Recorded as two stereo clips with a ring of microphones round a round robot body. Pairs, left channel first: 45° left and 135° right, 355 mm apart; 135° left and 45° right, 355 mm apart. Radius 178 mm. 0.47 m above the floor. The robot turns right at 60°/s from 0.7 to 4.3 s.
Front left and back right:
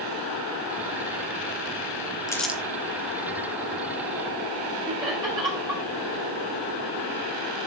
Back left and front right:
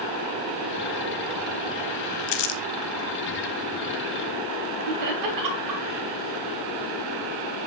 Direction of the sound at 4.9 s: 60° right.